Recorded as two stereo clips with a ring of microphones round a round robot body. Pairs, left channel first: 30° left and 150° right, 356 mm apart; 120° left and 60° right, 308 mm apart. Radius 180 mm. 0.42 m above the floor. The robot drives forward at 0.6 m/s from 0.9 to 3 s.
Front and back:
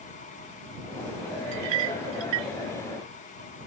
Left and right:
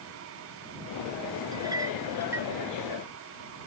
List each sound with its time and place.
1.5 s a clink: 140° right; by 2.5 s 145° right